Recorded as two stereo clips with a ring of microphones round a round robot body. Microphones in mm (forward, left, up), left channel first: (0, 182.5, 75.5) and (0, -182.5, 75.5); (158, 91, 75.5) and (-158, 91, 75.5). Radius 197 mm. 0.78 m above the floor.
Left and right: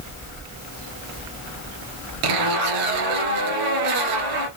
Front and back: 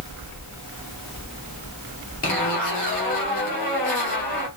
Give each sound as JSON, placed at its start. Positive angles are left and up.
{"t": 2.2, "sound": "a zipper", "azimuth_deg": -65, "distance_m": 2.0}